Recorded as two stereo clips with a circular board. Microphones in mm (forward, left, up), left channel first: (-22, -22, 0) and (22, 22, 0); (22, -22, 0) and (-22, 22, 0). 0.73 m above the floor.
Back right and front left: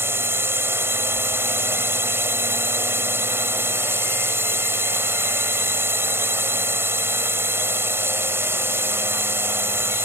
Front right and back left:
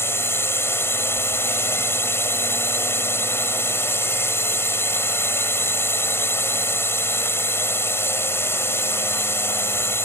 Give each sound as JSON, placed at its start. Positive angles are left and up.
{"t": 0.0, "sound": "a drone", "azimuth_deg": 0}